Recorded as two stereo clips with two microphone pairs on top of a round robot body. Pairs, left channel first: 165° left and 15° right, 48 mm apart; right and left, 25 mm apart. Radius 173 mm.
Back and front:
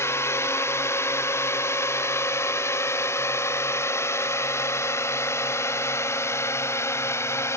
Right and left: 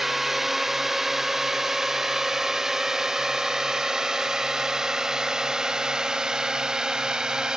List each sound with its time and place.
0.0 s a drone: 165° left; by 7.6 s 145° left